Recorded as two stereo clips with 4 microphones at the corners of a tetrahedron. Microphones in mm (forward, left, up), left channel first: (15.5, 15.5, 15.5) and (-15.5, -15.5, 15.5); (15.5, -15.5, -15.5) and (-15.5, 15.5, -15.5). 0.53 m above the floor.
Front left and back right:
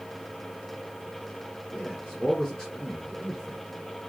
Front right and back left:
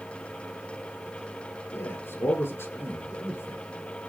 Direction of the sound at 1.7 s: 35° right.